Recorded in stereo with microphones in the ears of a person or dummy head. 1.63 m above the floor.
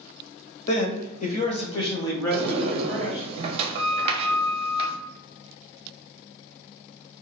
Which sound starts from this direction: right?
A sliding door, at 2.3 s.